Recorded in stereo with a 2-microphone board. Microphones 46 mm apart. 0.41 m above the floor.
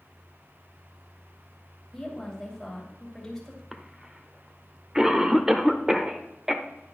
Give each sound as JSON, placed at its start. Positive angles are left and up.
{"t": 1.9, "sound": "a woman speaking", "side_deg": 5, "distance_m": 2.5}
{"t": 3.7, "sound": "a cough", "side_deg": -15, "distance_m": 0.9}